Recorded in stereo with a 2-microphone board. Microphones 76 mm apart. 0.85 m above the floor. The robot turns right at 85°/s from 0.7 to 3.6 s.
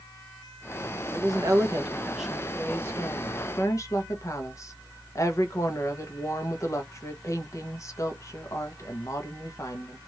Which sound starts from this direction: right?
A woman speaking, at 1.1 s.